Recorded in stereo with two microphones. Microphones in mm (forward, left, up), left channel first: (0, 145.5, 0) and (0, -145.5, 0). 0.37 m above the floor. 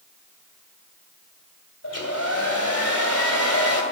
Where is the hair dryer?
55° left (ahead or behind), 2.5 m.